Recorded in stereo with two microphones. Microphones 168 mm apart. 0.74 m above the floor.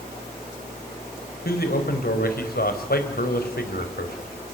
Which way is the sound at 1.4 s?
65° left (ahead or behind).